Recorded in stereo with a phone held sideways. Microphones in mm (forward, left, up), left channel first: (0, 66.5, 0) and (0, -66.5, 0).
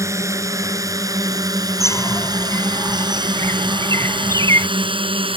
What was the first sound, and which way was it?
A drone, 20° right (ahead or behind).